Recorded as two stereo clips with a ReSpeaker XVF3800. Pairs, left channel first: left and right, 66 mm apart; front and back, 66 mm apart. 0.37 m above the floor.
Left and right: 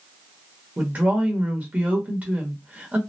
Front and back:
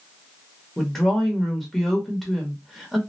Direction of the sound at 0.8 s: 85° right.